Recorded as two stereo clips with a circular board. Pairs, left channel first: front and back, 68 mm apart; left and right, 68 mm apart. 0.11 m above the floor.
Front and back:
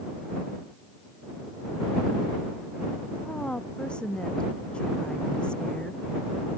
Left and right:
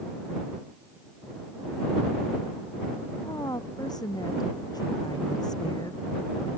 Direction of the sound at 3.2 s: 75° left.